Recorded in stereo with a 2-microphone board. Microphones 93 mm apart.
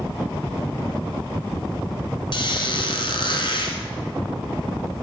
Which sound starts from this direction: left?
A squeak, at 2.3 s.